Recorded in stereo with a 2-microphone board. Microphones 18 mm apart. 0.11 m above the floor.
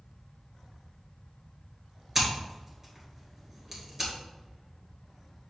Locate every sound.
2.1 s scissors: 20° right (ahead or behind), 1.8 m